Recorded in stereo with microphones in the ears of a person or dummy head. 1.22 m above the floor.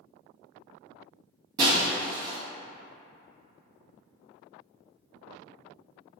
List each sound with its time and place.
1.6 s breaking glass: 25° right (ahead or behind), 0.9 m